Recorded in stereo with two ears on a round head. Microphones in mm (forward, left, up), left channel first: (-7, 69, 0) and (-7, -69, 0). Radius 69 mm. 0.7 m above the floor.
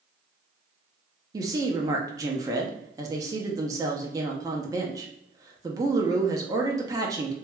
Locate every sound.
1.3 s a woman speaking: 20° right (ahead or behind), 0.5 m